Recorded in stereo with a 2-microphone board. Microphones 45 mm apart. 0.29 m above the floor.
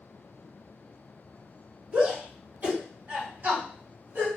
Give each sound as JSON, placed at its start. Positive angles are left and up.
{"t": 1.9, "sound": "a shout", "side_deg": -30, "distance_m": 2.5}